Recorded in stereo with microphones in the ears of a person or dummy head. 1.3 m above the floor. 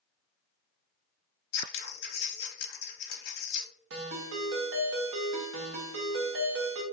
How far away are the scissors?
About 0.8 m.